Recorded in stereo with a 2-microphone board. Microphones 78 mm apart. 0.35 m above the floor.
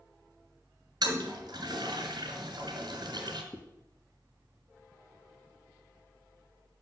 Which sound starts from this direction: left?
A zipper, at 3.5 s.